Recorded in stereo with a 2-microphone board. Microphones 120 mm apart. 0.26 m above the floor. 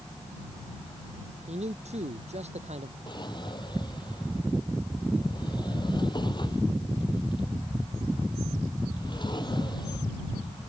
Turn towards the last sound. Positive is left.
turn(degrees=40)  # may be behind; listen again after turning